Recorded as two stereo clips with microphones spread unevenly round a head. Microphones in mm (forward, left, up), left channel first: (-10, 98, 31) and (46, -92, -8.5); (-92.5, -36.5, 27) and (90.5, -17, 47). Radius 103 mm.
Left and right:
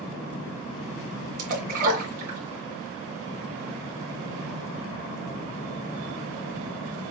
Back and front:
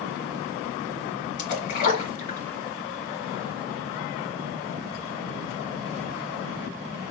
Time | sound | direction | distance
1.4 | a splash | 130° right | 2 m